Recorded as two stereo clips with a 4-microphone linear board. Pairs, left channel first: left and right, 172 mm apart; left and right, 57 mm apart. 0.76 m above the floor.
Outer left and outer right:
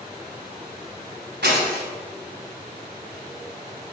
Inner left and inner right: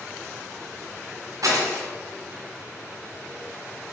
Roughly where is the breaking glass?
Right.